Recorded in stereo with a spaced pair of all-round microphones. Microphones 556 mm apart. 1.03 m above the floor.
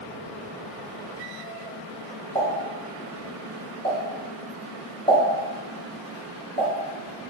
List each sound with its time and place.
2.4 s a pop: centre (ahead or behind), 3.5 m